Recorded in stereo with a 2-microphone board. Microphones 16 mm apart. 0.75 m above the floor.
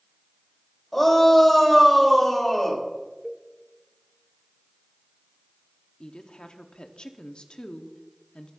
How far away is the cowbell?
About 0.9 m.